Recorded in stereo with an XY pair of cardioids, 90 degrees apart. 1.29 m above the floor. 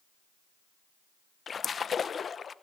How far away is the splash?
About 0.7 m.